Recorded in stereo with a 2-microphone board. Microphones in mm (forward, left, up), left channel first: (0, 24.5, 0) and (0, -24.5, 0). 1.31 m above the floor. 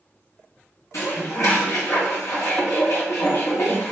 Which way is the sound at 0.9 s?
70° left (ahead or behind).